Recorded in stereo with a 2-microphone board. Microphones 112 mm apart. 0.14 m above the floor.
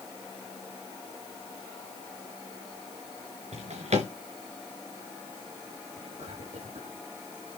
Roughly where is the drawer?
Right.